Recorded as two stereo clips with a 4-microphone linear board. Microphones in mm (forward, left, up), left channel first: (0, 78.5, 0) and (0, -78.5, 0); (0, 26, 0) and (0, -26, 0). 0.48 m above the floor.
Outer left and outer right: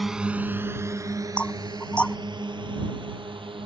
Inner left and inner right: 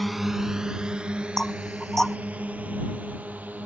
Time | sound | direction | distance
0.0 | a drone | centre (ahead or behind) | ?
1.4 | knocking | 5° left (ahead or behind) | ?